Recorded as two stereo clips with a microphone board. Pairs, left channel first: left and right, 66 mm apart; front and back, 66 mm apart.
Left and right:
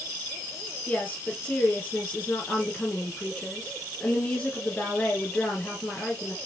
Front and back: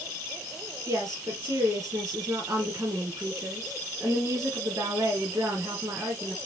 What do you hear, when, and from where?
0.9 s a woman speaking: 155° left, 2.5 m